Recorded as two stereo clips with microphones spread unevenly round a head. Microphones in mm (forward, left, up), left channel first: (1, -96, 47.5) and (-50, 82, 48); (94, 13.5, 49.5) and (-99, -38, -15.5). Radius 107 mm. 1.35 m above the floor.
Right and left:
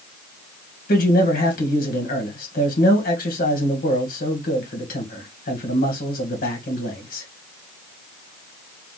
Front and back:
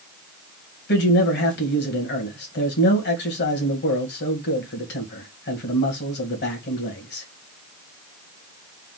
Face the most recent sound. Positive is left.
turn(degrees=-30)